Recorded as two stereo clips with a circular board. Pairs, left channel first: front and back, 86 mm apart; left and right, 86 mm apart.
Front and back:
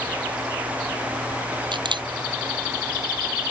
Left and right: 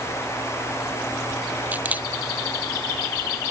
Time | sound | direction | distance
1.7 | a camera shutter | 160° right | ?